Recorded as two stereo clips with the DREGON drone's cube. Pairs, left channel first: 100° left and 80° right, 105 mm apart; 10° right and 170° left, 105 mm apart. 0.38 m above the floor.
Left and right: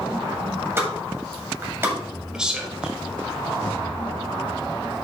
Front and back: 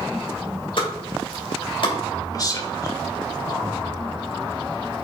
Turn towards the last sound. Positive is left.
turn(degrees=0)